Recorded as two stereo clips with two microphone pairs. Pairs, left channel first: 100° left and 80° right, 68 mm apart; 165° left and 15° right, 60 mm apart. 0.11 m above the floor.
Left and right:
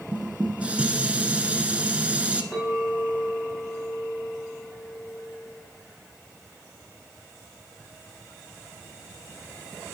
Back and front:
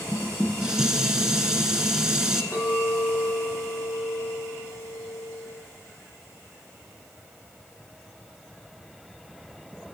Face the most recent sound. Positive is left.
turn(degrees=-165)